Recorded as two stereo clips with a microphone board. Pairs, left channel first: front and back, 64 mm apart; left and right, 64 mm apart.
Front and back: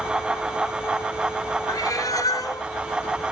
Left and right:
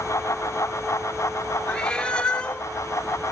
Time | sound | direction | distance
1.7 | a cat meowing | 15° left | 0.5 m